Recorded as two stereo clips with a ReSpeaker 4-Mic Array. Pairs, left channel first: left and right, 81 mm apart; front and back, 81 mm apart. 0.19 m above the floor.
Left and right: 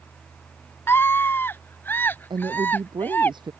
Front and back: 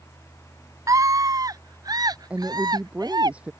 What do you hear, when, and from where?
0.9 s a scream: 145° left; by 3.3 s 155° left
2.3 s a woman speaking: 105° right